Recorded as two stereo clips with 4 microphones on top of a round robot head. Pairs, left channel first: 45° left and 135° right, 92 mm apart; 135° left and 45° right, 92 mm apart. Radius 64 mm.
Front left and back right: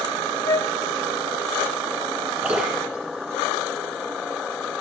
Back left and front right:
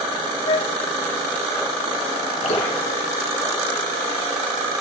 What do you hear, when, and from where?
0.5 s a flute: 100° left, 0.6 m
2.4 s dripping: 145° left, 5.5 m